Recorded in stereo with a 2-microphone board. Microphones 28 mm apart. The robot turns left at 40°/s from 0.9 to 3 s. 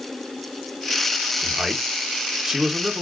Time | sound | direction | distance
1.4 | a man speaking | 25° right (ahead or behind) | 0.9 m